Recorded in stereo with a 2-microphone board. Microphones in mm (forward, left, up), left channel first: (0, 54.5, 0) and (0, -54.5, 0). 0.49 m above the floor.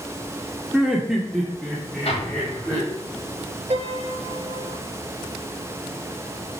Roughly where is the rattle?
I don't hear a rattle.